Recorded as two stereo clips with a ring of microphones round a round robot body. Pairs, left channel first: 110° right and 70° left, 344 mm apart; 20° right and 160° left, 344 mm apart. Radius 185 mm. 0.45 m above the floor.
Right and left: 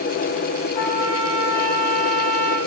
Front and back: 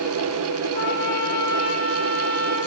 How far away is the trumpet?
About 10 m.